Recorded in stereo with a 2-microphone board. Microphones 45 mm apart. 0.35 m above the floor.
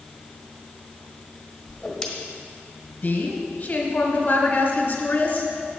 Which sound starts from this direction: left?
A woman speaking, at 3.0 s.